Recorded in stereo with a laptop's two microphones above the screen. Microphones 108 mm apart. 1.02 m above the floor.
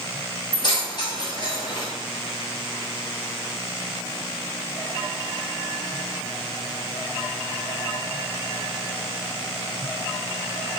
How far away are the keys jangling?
About 1.0 m.